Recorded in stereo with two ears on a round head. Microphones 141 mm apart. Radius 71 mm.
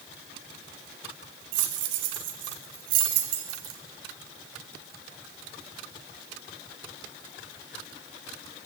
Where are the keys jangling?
75° right (ahead or behind), 2.0 m; by 3.8 s 80° right, 3.5 m.